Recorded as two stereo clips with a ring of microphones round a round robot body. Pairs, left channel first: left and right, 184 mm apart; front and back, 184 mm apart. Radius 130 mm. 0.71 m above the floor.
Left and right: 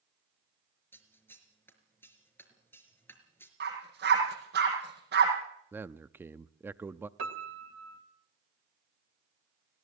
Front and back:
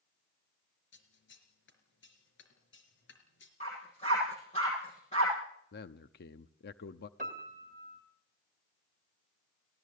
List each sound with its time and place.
0.9 s scissors: 10° left, 4 m
3.6 s a dog barking: 65° right, 7 m
5.7 s a man speaking: 15° right, 0.7 m
7.2 s a piano: 115° right, 1.6 m